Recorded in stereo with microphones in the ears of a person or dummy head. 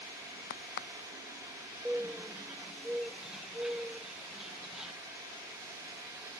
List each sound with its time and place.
0.5 s a crack: 65° left (ahead or behind)
1.9 s a bird: centre (ahead or behind)